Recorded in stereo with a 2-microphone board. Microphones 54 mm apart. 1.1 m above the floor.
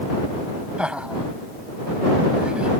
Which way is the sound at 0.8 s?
15° right (ahead or behind).